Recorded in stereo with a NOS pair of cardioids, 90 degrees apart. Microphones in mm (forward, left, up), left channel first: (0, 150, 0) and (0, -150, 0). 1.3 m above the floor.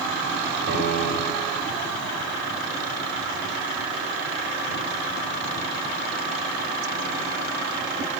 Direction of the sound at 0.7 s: 50° right.